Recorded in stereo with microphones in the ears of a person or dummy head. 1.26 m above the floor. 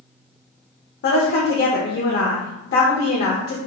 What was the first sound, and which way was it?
A woman speaking, 60° left (ahead or behind).